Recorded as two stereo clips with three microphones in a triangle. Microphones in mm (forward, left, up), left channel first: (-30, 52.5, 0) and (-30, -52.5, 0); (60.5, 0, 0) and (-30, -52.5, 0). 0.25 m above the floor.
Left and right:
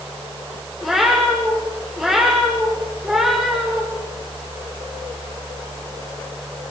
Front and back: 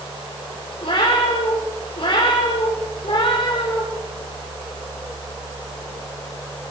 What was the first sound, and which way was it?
A cat meowing, 5° right.